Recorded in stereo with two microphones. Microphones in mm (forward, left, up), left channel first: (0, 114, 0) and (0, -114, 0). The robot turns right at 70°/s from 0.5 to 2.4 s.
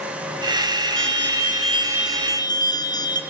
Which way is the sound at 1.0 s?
80° right.